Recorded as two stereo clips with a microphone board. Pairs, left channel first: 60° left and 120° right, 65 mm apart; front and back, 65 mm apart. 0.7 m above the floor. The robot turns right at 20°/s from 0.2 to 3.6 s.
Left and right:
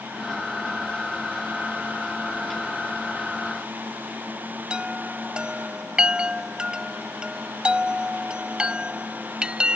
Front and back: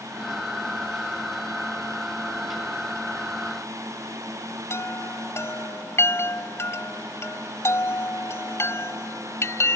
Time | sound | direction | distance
4.7 | a chime | 45° right | ?